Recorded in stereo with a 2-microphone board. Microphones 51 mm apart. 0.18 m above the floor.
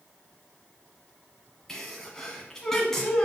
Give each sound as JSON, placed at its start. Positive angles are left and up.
{"t": 1.7, "sound": "a sneeze", "side_deg": 10, "distance_m": 1.4}